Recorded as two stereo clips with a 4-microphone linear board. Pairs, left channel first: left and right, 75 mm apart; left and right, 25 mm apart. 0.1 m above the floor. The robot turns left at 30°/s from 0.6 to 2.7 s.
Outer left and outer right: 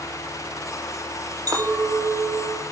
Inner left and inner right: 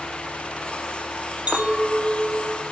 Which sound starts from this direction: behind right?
A clink, at 1.5 s.